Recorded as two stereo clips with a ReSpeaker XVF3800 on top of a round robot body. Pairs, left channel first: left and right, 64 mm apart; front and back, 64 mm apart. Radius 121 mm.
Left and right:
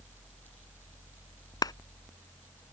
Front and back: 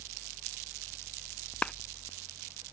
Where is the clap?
75° left.